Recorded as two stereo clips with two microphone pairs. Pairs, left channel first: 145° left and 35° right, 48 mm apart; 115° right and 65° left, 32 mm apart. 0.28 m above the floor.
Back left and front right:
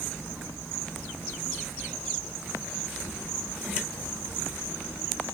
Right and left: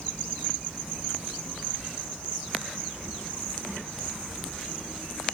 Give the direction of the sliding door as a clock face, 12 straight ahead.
I don't hear a sliding door.